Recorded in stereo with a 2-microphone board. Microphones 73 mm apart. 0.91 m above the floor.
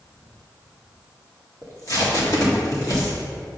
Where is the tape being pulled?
55° left (ahead or behind), 1.7 m.